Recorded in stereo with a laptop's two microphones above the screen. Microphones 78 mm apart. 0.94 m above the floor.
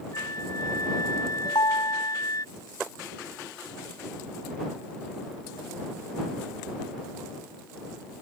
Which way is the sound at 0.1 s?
50° left (ahead or behind).